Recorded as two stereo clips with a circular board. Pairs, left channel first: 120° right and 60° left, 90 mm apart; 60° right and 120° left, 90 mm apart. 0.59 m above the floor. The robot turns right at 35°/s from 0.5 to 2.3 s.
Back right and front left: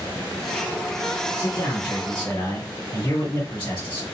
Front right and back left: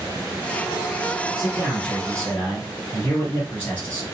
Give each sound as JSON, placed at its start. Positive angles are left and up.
{"t": 1.4, "sound": "a man speaking", "azimuth_deg": -160, "distance_m": 1.7}